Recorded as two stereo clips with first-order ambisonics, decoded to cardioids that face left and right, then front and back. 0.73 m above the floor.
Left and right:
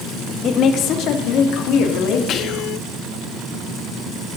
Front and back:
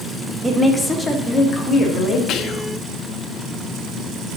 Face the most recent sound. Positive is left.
turn(degrees=40)